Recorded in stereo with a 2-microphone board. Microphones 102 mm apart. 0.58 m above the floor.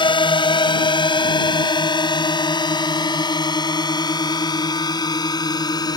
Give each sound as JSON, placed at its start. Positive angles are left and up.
{"t": 0.0, "sound": "a drone", "side_deg": 55}